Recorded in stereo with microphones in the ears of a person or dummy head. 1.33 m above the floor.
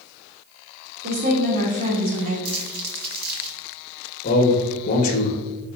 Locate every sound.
1.0 s a woman speaking: 40° right (ahead or behind), 2.5 m
2.5 s crumpling: 55° right (ahead or behind), 2 m
4.2 s a man speaking: 40° left (ahead or behind), 1.5 m